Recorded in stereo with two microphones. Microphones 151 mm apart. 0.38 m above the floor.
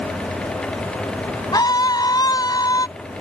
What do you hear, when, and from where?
1.5 s a scream: 30° left (ahead or behind)